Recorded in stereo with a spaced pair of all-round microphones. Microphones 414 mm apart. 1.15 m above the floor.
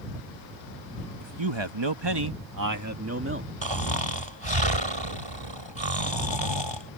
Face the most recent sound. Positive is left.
turn(degrees=-85)